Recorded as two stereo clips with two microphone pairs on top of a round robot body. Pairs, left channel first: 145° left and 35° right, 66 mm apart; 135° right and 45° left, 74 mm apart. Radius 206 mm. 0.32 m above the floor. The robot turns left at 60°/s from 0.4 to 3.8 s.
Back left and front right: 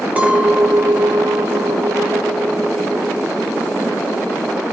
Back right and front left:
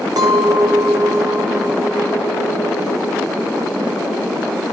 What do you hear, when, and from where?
0.2 s a clink: 30° left, 1.3 m; by 4.6 s 175° right, 1.3 m